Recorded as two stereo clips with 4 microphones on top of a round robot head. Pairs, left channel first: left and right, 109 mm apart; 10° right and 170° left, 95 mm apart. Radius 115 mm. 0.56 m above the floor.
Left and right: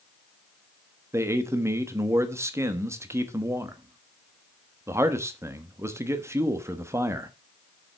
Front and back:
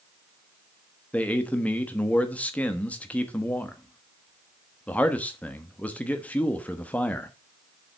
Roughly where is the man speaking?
Ahead right.